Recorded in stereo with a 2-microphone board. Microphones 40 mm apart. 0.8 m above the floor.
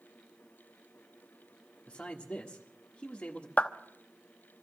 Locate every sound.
1.9 s a man speaking: 25° left (ahead or behind), 1.5 m
3.6 s a clap: 35° left (ahead or behind), 0.9 m